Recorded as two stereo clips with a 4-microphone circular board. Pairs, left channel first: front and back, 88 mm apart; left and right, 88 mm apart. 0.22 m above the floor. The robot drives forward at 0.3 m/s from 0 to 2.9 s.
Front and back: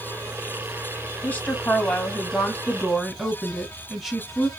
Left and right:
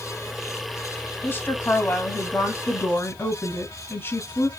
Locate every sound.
1.2 s a woman speaking: 50° left, 1.3 m; by 4.5 s 95° left, 1.2 m